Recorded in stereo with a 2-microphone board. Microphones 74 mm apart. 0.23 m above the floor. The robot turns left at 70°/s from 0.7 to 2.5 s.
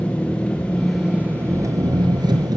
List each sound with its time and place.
0.0 s an engine running: 15° left, 1.8 m; by 2.6 s 110° right, 1.8 m